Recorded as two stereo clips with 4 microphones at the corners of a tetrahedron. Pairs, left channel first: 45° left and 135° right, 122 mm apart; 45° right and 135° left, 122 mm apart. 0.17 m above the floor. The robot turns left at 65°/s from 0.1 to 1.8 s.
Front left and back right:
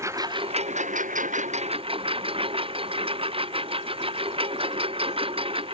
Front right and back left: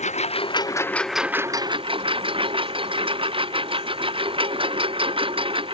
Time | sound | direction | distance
0.0 | a lawn mower | 70° right | ?